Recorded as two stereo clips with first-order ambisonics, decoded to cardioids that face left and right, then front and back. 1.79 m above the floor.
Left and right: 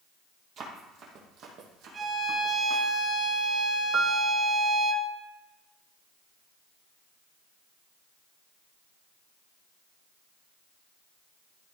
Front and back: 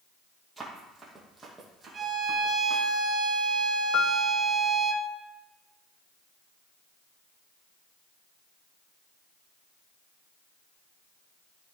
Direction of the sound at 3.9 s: 30° right.